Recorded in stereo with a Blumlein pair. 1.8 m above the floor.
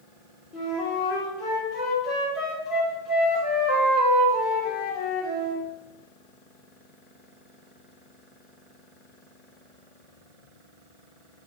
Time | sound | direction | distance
0.5 | a flute | 45° left | 2.5 m